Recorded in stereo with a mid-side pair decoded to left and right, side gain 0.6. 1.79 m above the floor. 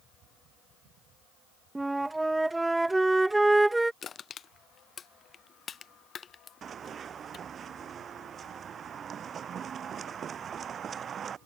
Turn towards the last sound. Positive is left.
turn(degrees=-40)